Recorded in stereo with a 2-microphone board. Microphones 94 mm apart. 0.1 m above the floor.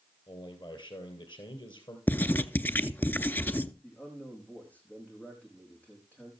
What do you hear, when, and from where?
0.3 s a man speaking: 55° left (ahead or behind), 2.5 m
2.1 s writing: 20° left (ahead or behind), 0.6 m
3.8 s a man speaking: 15° left (ahead or behind), 5.5 m